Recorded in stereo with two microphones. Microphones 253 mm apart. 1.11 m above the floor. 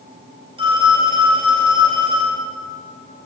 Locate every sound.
0.6 s a phone ringing: 20° right (ahead or behind), 4.5 m